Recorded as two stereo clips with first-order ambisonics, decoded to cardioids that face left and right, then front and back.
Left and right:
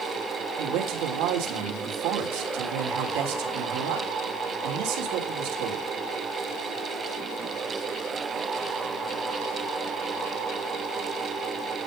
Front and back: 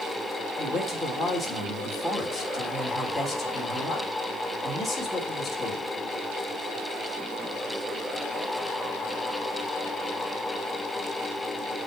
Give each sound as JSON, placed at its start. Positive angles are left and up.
{"t": 0.6, "sound": "a man speaking", "azimuth_deg": -90, "distance_m": 3.0}